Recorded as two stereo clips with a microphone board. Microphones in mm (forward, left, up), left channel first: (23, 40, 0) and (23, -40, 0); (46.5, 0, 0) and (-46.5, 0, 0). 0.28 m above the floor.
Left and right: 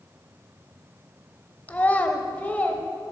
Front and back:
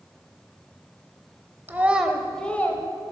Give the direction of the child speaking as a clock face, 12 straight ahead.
7 o'clock.